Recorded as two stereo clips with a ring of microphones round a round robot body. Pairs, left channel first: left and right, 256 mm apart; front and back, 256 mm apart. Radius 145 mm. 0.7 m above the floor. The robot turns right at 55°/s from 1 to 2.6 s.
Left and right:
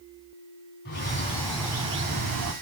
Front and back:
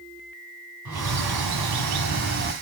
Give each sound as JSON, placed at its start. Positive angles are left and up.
{"t": 0.8, "sound": "a bird", "azimuth_deg": 150, "distance_m": 1.7}